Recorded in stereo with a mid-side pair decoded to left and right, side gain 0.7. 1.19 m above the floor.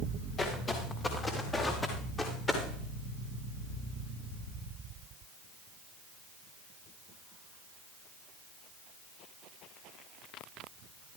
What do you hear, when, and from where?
0.4 s footsteps: 30° left, 6.5 m; by 2.6 s 20° left, 7.5 m